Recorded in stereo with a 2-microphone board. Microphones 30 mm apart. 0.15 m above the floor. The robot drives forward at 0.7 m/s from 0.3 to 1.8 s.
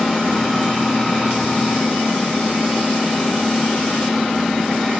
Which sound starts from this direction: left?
An engine running, at 0.0 s.